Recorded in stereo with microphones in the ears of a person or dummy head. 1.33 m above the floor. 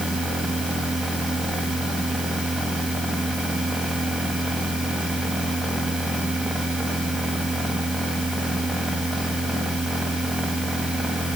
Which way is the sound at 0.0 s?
5° right (ahead or behind).